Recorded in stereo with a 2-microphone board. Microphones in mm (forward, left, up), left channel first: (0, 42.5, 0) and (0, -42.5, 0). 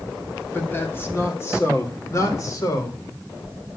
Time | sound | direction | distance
0.5 | a man speaking | 20° left (ahead or behind) | 3 m